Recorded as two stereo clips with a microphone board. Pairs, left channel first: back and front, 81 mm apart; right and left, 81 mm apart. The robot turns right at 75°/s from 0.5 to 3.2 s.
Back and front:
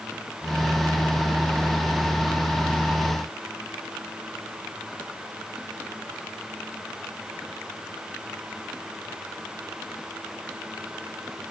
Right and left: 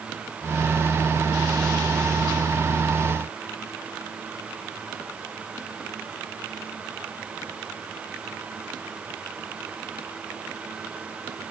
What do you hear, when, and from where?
Only background noise.